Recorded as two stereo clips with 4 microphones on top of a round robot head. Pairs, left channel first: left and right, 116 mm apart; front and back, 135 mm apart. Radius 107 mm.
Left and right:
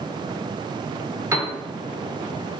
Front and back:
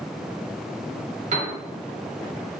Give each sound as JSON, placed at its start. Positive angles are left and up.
{"t": 1.3, "sound": "a piano", "azimuth_deg": -155, "distance_m": 0.8}